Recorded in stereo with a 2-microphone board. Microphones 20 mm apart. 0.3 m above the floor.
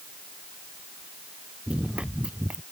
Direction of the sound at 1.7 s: 60° right (ahead or behind).